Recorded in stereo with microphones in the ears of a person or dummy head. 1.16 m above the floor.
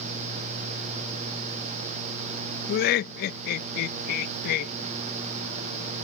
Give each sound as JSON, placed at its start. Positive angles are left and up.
{"t": 2.7, "sound": "laughter", "side_deg": 50}